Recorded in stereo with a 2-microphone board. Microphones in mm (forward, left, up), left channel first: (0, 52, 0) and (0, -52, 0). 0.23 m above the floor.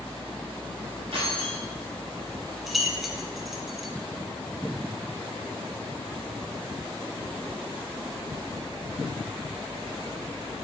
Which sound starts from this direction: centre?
Keys jangling, at 2.7 s.